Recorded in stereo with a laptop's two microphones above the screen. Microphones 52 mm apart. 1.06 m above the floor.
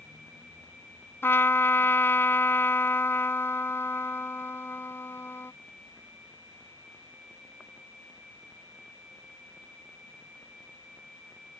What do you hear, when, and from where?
1.2 s a trumpet: 50° left (ahead or behind)